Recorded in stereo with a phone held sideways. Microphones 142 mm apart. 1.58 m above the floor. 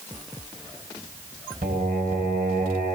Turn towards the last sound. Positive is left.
turn(degrees=-75)  # may be behind; listen again after turning